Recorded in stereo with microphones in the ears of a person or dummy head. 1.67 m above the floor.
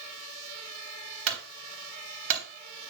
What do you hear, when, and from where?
1.3 s a clunk: 70° right (ahead or behind), 3 m